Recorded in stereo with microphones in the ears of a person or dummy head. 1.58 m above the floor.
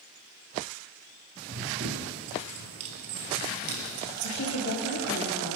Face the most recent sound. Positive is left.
turn(degrees=80)